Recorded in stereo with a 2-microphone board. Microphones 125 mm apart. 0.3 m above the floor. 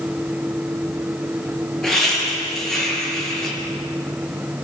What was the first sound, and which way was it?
Laughter, 5° left (ahead or behind).